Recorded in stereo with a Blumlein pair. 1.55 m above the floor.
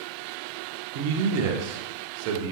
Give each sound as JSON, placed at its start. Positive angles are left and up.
{"t": 0.9, "sound": "a man speaking", "azimuth_deg": -45, "distance_m": 0.6}